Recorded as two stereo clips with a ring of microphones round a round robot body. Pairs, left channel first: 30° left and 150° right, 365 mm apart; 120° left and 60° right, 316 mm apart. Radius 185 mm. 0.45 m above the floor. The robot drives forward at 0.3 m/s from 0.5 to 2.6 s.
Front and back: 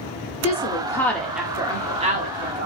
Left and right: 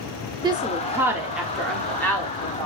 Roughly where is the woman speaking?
Ahead.